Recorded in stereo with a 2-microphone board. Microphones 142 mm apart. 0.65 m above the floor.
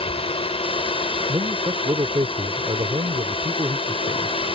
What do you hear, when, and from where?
0.0 s a drone: 40° left (ahead or behind)
1.3 s a man speaking: 35° right (ahead or behind)